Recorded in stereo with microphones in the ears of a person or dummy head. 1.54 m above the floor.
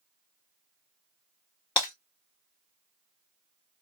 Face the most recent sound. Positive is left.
turn(degrees=25)  # may be behind; listen again after turning